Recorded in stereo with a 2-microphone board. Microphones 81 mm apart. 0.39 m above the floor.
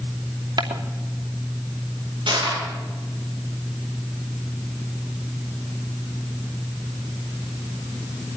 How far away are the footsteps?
About 2.5 m.